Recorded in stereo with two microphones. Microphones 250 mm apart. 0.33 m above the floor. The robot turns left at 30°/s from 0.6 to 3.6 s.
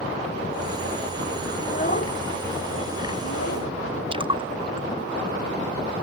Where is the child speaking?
30° left (ahead or behind); by 3.7 s 85° left.